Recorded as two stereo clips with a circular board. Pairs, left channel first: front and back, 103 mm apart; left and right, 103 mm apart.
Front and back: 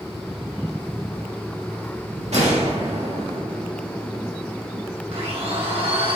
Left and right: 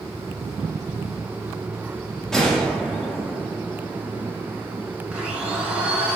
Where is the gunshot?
175° left, 1.8 m.